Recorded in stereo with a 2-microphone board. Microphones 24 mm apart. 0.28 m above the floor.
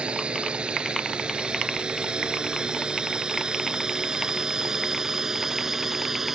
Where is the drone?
45° right (ahead or behind); by 6.3 s 15° right (ahead or behind).